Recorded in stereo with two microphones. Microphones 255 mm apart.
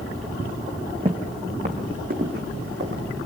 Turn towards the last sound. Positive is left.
turn(degrees=-45)  # may be behind; listen again after turning